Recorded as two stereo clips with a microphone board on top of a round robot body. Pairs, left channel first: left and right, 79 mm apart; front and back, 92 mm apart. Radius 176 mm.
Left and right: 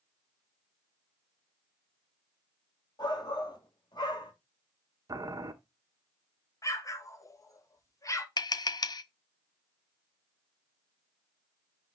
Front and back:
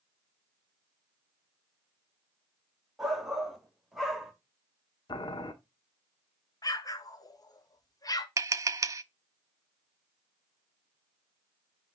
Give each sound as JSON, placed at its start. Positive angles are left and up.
{"t": 3.0, "sound": "a shout", "azimuth_deg": 95, "distance_m": 2.5}
{"t": 5.1, "sound": "boiling", "azimuth_deg": -40, "distance_m": 1.0}
{"t": 6.6, "sound": "an explosion", "azimuth_deg": 45, "distance_m": 1.4}
{"t": 8.4, "sound": "tapping", "azimuth_deg": 125, "distance_m": 0.6}